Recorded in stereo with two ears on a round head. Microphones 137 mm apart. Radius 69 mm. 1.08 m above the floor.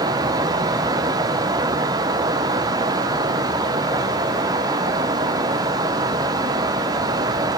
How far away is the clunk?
No clunk in this recording.